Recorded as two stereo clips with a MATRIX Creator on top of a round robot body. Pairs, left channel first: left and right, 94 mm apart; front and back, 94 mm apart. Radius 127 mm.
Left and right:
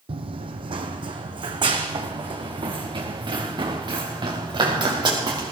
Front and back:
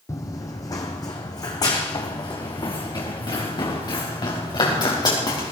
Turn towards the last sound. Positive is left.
turn(degrees=-50)